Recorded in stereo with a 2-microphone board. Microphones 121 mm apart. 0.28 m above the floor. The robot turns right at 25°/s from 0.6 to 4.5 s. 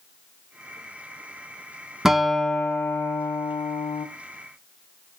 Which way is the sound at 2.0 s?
5° right.